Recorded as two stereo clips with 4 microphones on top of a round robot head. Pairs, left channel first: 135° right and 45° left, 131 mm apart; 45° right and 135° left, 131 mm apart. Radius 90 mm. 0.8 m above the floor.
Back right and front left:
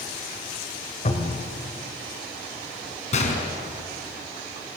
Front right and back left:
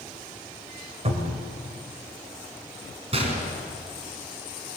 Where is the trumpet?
No trumpet in this recording.